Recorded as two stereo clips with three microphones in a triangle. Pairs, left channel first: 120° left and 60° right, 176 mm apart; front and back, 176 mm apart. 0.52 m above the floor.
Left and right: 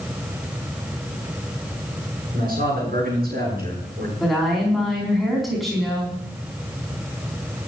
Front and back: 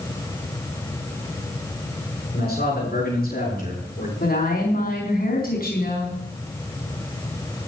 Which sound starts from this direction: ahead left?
A woman speaking, at 4.2 s.